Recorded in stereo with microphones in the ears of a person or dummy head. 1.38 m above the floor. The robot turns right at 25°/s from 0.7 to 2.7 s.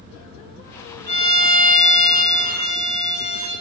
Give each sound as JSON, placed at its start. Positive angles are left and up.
{"t": 1.1, "sound": "a violin", "azimuth_deg": -130, "distance_m": 1.6}